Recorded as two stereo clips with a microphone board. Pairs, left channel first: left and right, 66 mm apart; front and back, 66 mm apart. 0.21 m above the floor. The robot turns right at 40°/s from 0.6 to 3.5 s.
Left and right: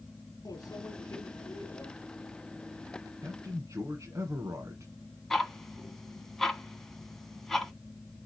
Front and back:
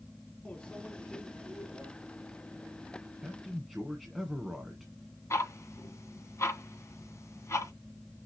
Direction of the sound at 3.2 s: 105° right.